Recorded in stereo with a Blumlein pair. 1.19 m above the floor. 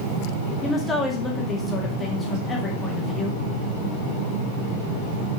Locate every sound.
0.6 s a woman speaking: 10° left, 1.8 m